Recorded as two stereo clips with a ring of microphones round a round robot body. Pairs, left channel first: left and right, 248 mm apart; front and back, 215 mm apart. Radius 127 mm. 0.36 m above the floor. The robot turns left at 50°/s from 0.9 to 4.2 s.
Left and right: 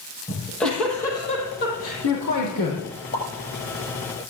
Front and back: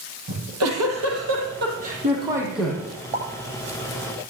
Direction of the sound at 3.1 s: 125° left.